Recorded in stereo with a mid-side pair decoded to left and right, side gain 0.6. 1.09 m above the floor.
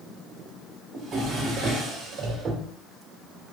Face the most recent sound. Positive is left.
turn(degrees=-40)